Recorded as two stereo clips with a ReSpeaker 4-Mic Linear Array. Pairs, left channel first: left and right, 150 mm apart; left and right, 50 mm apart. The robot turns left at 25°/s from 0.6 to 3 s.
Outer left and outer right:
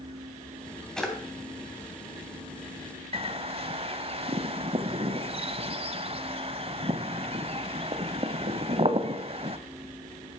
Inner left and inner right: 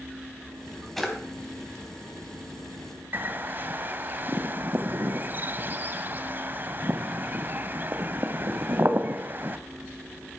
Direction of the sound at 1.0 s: 5° left (ahead or behind).